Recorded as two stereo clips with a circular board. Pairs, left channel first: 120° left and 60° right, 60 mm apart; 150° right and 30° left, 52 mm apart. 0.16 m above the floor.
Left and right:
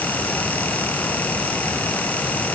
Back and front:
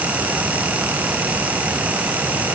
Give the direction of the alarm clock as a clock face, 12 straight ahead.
I don't hear an alarm clock.